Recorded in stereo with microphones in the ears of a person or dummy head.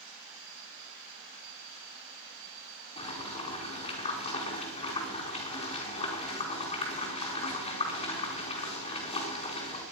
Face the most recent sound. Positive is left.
turn(degrees=35)  # may be behind; listen again after turning